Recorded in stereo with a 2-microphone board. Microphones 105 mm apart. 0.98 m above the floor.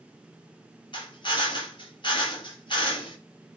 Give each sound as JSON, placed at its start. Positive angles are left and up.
{"t": 0.9, "sound": "a drill", "side_deg": 50, "distance_m": 4.5}